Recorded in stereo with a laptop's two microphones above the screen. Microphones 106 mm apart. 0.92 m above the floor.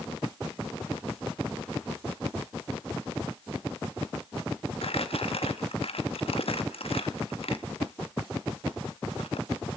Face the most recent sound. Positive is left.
turn(degrees=65)  # may be behind; listen again after turning